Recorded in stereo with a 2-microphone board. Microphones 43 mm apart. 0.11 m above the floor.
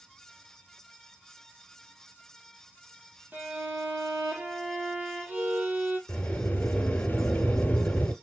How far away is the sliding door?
About 1.5 m.